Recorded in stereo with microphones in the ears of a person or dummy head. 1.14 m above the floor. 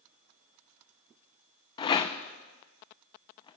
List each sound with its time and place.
1.8 s a rattle: 15° left (ahead or behind), 0.5 m